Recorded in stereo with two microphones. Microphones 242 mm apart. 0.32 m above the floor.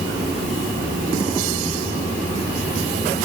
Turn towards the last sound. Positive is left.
No sound to turn to.